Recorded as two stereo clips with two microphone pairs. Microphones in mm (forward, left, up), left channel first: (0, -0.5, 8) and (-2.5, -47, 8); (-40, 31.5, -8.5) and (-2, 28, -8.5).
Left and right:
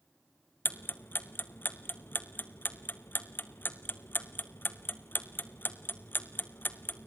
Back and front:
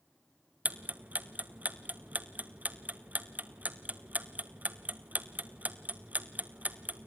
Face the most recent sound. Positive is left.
turn(degrees=40)